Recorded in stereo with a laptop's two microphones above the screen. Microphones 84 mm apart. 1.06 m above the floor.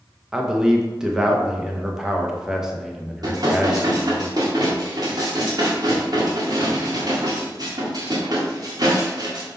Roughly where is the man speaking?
Centre.